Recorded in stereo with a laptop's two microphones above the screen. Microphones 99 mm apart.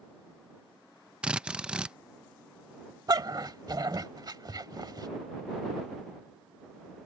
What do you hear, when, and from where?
1.2 s a drill: 10° right (ahead or behind)
3.1 s a dog barking: 50° right (ahead or behind)